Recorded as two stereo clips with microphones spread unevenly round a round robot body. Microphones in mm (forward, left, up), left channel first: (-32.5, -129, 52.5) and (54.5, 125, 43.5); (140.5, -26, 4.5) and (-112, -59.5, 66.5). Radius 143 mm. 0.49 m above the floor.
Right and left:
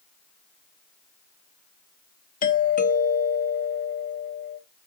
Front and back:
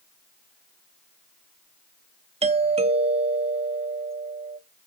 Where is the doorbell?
100° right, 1.2 m.